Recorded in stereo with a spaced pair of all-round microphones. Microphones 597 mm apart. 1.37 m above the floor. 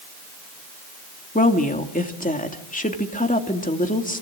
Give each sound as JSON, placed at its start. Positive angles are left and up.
{"t": 1.4, "sound": "a woman speaking", "side_deg": 15, "distance_m": 2.5}